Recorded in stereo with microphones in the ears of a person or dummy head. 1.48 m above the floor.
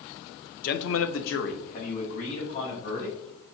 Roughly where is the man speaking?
Left.